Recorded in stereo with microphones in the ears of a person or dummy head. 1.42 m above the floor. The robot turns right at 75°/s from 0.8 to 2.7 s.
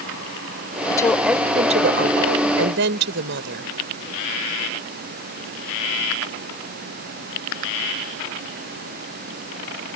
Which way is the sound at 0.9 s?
155° left.